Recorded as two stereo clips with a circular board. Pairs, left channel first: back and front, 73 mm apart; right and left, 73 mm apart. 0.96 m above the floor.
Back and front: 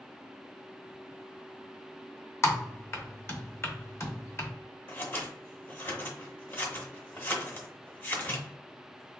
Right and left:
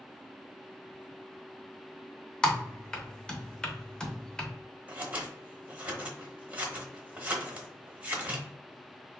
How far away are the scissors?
About 0.9 m.